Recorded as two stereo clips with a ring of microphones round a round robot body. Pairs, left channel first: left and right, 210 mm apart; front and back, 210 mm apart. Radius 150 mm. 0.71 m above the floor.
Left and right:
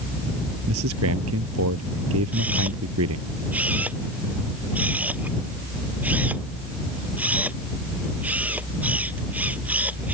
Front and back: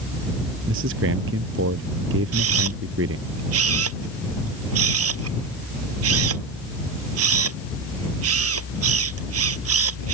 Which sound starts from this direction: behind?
A camera shutter, at 2.3 s.